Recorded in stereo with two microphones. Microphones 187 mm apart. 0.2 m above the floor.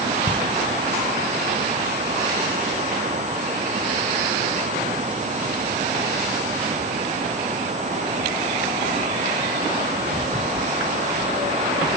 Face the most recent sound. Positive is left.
turn(degrees=30)  # may be behind; listen again after turning